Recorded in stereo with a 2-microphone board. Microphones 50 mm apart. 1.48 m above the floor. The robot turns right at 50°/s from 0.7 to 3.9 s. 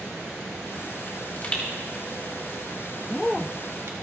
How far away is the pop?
About 3 m.